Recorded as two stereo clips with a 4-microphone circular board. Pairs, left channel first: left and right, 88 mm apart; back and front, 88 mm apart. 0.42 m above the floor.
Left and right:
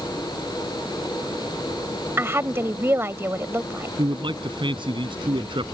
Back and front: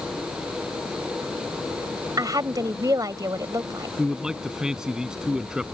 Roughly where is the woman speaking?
Ahead right.